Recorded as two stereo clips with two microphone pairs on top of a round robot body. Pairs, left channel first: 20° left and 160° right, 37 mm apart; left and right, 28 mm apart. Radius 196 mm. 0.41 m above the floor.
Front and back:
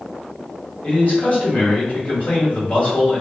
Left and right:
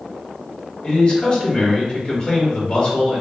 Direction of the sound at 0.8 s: 60° left.